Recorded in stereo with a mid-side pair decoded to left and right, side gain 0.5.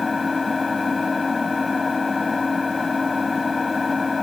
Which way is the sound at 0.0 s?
25° left.